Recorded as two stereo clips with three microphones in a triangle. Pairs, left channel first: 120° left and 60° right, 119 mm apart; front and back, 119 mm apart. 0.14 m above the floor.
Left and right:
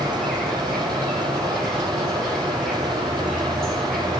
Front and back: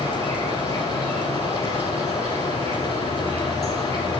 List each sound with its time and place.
0.0 s an insect: 155° right, 1.8 m